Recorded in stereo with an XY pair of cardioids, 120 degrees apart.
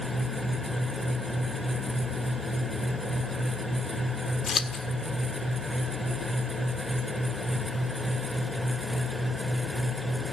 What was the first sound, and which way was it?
A fan, straight ahead.